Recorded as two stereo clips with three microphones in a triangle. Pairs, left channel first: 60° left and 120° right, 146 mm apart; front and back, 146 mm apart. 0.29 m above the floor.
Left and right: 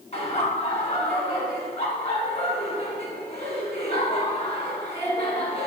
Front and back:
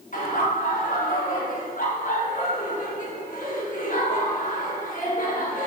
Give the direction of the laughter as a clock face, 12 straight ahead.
11 o'clock.